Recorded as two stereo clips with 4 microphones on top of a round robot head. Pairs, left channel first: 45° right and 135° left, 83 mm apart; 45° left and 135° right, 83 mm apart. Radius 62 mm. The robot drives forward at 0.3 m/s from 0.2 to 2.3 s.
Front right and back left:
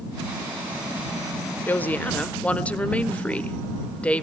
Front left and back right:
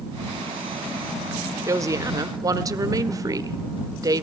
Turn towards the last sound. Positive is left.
turn(degrees=-115)